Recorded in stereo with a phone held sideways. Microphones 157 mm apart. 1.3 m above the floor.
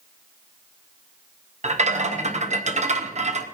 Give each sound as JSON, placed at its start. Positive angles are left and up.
{"t": 1.6, "sound": "a rattle", "side_deg": -45, "distance_m": 0.8}